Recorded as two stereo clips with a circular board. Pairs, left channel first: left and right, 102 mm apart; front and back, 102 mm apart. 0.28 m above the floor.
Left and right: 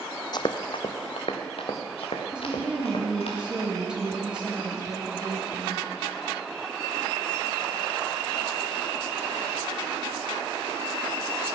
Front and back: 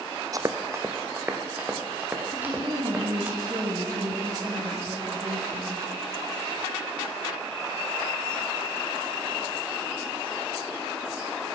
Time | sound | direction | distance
0.3 | running footsteps | 130° left | 0.6 m
2.3 | a woman speaking | 165° right | 1.4 m